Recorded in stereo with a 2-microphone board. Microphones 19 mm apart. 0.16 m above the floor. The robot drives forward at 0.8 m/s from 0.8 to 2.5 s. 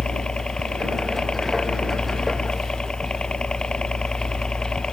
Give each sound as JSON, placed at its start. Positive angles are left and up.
{"t": 0.0, "sound": "a helicopter", "side_deg": 55}